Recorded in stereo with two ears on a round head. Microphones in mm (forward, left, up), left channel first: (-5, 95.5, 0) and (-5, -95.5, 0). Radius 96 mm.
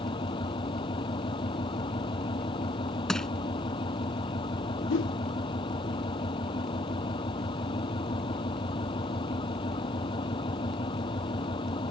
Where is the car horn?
No car horn in this recording.